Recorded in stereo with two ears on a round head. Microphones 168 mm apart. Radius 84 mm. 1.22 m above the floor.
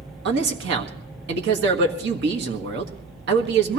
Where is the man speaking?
65° right (ahead or behind), 1.6 m.